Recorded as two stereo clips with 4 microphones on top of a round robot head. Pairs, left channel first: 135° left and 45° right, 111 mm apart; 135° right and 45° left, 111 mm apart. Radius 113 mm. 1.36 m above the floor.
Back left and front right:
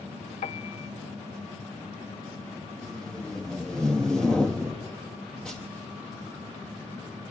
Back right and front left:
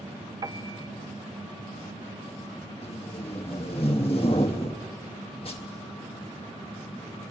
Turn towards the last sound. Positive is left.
turn(degrees=-145)